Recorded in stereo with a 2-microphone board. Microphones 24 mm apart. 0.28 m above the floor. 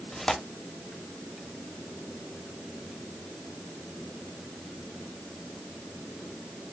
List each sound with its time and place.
0.1 s tearing paper: 20° left (ahead or behind), 0.9 m